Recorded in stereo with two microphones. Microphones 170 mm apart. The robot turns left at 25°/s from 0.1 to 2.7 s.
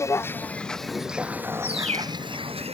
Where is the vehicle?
15° left (ahead or behind); by 2.7 s 40° right (ahead or behind).